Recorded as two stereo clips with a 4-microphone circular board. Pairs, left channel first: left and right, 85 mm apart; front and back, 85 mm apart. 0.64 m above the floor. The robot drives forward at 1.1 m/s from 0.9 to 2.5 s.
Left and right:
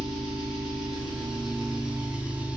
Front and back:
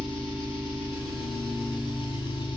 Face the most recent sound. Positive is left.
turn(degrees=-15)